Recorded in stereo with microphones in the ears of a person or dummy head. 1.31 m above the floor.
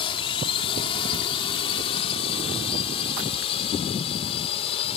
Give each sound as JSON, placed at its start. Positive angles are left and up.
{"t": 0.0, "sound": "a drone", "side_deg": 35}